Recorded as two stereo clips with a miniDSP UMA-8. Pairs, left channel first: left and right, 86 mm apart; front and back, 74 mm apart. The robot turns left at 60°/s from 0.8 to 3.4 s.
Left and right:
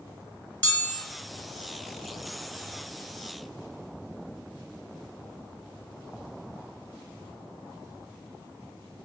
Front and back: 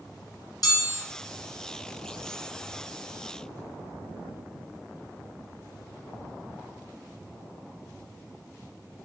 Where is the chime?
20° left, 1.4 m; by 1.0 s 5° left, 1.4 m.